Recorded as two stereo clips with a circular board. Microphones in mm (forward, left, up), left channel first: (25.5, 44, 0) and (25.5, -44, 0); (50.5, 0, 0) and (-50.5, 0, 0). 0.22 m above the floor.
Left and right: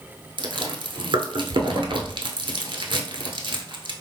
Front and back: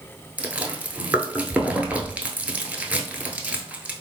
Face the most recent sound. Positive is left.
turn(degrees=-105)